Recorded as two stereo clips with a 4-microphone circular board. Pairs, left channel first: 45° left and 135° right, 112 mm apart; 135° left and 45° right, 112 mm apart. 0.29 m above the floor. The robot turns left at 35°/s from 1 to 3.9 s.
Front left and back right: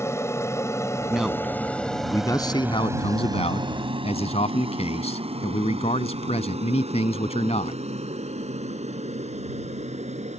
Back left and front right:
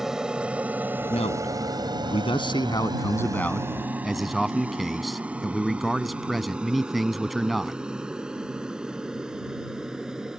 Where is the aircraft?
35° left; by 10.4 s 130° right.